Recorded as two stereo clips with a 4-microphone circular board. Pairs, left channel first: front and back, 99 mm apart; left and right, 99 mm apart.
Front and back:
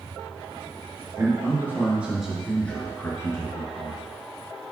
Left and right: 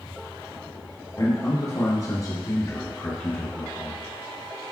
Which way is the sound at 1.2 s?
130° left.